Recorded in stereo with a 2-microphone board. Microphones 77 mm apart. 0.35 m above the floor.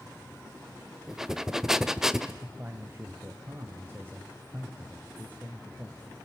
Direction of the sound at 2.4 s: 25° right (ahead or behind).